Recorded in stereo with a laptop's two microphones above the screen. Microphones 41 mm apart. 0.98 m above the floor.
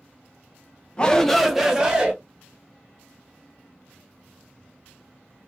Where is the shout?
20° left (ahead or behind), 0.9 m; by 2.1 s 25° right (ahead or behind), 1.4 m.